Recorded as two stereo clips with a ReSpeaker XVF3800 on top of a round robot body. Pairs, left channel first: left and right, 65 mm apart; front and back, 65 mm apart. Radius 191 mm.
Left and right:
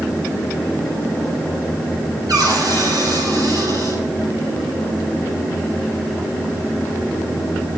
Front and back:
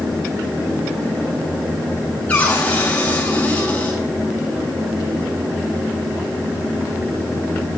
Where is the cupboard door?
70° right, 6 m.